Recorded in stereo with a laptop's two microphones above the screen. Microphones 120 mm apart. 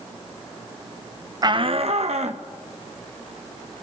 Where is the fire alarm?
No fire alarm in this recording.